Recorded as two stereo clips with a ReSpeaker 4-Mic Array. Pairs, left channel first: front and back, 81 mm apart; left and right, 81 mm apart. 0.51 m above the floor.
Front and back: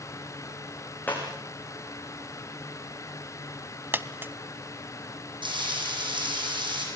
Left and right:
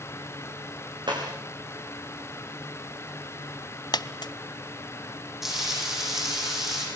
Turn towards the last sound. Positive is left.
turn(degrees=-175)